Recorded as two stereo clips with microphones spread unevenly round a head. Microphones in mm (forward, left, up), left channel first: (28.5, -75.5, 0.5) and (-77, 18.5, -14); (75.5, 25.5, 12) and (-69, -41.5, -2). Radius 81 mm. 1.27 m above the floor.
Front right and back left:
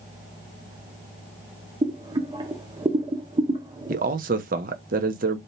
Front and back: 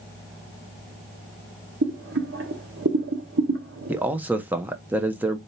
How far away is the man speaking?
About 1.0 m.